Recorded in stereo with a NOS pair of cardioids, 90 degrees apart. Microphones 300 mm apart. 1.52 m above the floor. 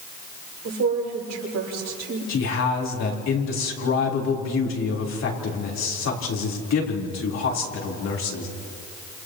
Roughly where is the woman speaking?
Ahead right.